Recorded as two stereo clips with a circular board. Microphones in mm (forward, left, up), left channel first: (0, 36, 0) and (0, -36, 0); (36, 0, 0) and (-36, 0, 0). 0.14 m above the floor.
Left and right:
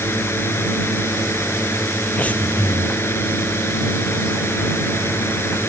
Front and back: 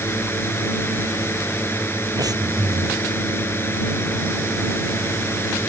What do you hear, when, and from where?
0.0 s a drone: 45° left
2.2 s breathing: 160° left